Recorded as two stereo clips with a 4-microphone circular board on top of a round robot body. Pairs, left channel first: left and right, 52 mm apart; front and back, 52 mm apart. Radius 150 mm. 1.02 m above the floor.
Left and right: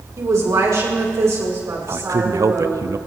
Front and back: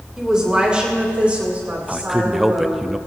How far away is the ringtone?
I don't hear a ringtone.